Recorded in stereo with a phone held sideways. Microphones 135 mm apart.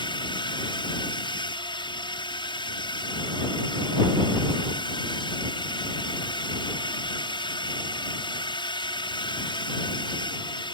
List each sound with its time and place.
0.0 s a drone: 30° left (ahead or behind)